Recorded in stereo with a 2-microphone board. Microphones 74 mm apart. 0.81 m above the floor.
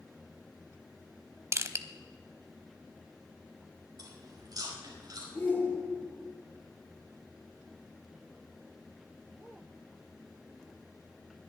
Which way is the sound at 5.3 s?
25° left (ahead or behind).